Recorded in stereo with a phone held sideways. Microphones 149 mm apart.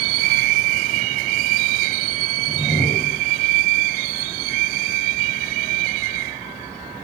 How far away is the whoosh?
About 2 m.